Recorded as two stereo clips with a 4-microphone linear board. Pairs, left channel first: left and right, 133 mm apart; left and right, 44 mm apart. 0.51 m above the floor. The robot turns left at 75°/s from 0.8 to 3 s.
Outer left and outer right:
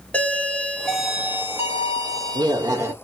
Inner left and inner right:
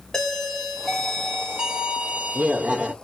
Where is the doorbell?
15° left, 1.2 m; by 2.9 s 145° right, 1.2 m.